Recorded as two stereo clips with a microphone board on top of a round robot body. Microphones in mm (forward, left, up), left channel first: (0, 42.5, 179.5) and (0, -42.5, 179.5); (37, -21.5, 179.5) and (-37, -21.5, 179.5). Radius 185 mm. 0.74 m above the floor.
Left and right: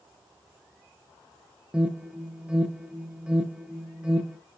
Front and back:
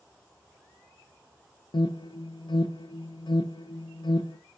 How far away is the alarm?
About 0.7 m.